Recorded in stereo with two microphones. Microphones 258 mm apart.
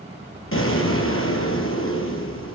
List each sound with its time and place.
0.5 s an explosion: 55° left (ahead or behind), 4 m